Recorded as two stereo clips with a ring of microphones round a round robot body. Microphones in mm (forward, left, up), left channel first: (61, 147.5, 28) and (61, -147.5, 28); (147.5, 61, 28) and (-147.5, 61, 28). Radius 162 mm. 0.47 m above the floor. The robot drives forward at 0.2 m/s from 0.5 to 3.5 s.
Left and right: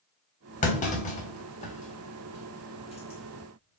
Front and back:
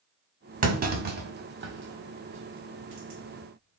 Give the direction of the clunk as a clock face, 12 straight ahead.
7 o'clock.